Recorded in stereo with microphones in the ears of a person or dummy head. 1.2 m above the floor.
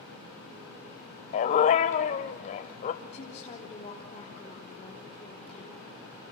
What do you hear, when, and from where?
1.3 s a dog barking: 40° left (ahead or behind), 1.2 m
3.0 s a woman speaking: 35° left (ahead or behind), 3.5 m